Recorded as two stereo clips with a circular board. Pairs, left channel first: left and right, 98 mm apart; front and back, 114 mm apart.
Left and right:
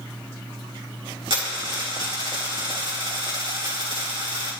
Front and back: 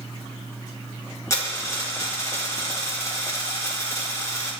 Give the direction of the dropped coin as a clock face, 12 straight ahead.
2 o'clock.